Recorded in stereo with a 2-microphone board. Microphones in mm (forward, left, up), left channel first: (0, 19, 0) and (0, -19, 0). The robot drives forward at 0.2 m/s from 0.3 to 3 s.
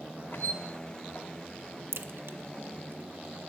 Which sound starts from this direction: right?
A crack, at 1.9 s.